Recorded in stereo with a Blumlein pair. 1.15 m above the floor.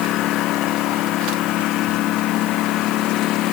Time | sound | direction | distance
0.0 | a lawn mower | 35° left | ?